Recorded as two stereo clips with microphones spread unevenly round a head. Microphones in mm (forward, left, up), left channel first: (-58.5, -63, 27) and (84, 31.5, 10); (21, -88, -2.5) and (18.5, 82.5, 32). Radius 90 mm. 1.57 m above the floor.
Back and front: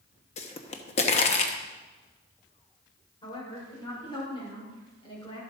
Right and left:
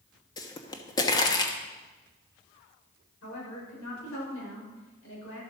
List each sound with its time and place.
0.4 s a pop: 165° right, 1.1 m
3.2 s a woman speaking: 85° right, 7.5 m